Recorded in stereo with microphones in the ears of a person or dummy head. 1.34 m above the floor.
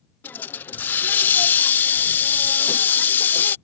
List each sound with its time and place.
0.2 s a hiss: 10° left (ahead or behind)